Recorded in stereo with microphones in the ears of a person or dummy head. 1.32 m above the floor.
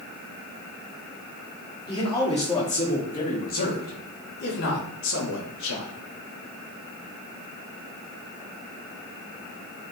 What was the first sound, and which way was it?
A man speaking, 25° left (ahead or behind).